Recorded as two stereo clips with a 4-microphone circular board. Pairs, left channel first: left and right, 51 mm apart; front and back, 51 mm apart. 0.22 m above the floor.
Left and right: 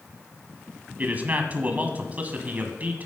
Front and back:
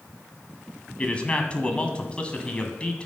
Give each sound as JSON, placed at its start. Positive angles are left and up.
{"t": 1.0, "sound": "a man speaking", "azimuth_deg": -50, "distance_m": 1.2}